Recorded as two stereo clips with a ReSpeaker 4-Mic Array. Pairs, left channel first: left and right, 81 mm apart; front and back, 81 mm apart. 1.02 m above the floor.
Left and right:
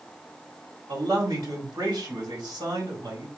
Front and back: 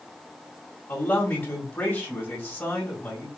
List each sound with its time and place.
0.9 s a man speaking: 60° right, 1.9 m